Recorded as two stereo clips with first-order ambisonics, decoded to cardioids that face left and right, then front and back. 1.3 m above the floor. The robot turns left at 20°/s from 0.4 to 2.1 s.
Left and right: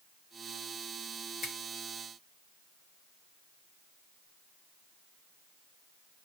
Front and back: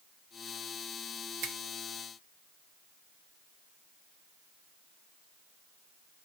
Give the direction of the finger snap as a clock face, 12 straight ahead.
7 o'clock.